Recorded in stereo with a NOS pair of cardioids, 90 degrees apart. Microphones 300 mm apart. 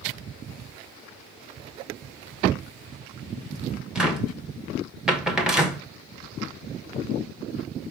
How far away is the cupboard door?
About 1.0 m.